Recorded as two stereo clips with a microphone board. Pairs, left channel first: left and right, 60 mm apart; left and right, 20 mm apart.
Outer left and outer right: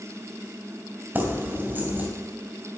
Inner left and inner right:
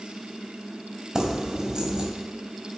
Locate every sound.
1.1 s keys jangling: 30° right (ahead or behind), 2 m